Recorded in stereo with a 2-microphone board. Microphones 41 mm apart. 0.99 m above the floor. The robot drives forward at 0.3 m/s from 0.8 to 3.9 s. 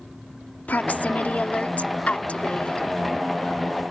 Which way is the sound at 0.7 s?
45° left (ahead or behind).